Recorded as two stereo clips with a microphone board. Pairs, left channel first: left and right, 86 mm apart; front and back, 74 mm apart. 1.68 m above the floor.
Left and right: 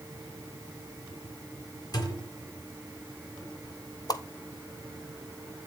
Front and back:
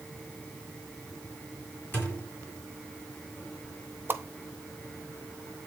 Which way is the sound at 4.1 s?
125° left.